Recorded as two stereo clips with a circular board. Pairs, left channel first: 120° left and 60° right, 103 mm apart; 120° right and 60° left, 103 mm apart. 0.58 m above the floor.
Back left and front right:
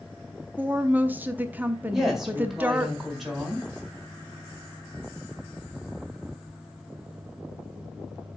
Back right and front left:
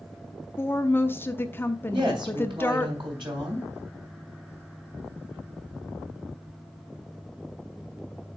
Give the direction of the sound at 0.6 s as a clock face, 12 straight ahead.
3 o'clock.